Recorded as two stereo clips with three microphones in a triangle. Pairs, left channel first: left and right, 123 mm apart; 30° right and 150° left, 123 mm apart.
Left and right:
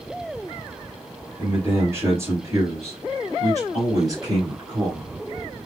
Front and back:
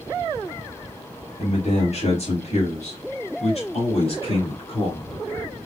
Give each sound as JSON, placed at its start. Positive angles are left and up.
{"t": 1.4, "sound": "a man speaking", "azimuth_deg": -20, "distance_m": 3.5}